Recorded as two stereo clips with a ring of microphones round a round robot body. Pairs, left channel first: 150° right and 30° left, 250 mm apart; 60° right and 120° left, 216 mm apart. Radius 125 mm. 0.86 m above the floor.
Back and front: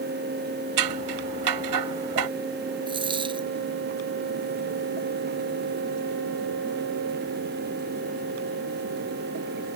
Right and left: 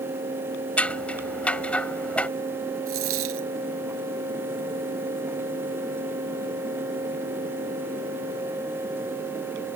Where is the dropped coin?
100° left.